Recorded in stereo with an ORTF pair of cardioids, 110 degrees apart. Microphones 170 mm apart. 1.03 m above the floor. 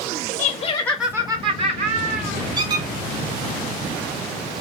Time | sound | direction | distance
0.4 | laughter | 55° left | 0.7 m
2.6 | a squeak | 25° right | 0.7 m